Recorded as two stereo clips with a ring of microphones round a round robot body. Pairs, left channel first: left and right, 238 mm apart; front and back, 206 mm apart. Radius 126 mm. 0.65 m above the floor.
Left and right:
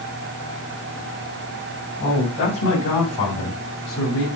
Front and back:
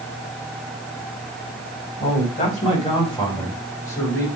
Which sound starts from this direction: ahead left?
A man speaking, at 2.0 s.